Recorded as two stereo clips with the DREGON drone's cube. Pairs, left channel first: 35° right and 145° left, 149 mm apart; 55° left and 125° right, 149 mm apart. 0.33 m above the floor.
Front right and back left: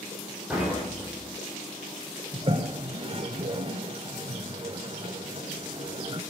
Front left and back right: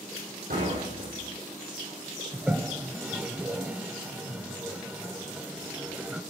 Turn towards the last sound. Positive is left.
turn(degrees=160)